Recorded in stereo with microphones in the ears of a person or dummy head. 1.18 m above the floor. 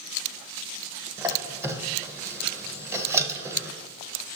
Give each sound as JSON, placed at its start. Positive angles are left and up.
{"t": 1.2, "sound": "a squeak", "side_deg": -15, "distance_m": 0.5}